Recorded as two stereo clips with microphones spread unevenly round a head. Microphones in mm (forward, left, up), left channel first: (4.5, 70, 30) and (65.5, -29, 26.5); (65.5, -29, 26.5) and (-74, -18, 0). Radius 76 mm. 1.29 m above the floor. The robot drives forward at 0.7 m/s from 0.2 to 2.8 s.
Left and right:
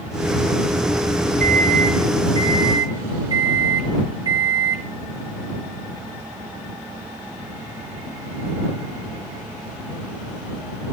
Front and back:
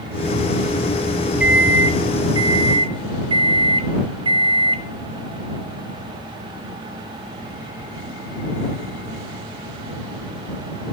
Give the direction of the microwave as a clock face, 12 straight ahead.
3 o'clock.